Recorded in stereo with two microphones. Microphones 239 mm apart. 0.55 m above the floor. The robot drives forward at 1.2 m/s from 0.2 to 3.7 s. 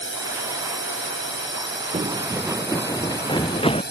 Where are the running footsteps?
30° right (ahead or behind); by 3.8 s 25° left (ahead or behind).